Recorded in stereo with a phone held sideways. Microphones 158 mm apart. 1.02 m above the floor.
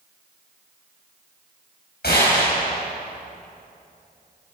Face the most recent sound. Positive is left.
turn(degrees=85)